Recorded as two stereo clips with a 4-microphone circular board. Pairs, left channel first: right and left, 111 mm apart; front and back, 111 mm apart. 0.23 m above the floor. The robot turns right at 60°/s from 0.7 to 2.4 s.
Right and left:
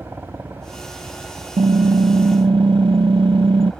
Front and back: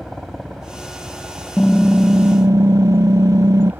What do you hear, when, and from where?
0.0 s a helicopter: 95° left; by 3.8 s 165° right
1.6 s typing on a keyboard: 75° left; by 3.7 s 125° left